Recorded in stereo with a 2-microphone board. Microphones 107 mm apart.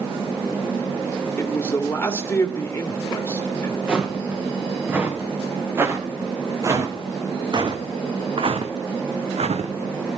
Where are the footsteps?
10° right (ahead or behind), 3 m; by 10.2 s 75° right (ahead or behind), 2 m.